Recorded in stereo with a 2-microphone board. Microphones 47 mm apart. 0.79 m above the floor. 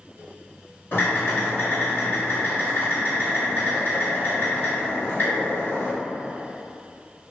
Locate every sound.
0.9 s typing on a keyboard: 55° left (ahead or behind), 1.7 m